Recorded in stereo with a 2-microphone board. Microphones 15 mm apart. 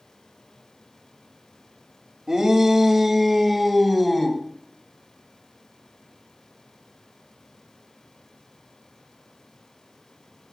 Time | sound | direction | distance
2.3 | a shout | 30° right (ahead or behind) | 1.6 m